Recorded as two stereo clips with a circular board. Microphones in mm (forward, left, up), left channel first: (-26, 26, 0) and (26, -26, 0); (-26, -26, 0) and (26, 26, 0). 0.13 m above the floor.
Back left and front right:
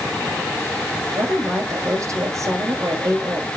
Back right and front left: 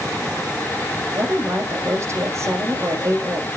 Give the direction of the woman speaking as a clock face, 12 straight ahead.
12 o'clock.